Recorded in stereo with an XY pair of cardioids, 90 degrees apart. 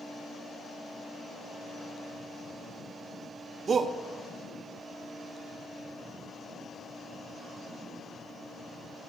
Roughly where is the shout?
Ahead right.